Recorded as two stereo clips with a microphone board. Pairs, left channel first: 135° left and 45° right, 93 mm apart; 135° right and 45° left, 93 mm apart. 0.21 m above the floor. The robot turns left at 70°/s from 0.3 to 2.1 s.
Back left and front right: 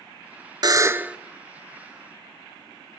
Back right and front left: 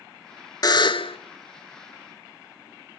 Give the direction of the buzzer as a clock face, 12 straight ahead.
3 o'clock.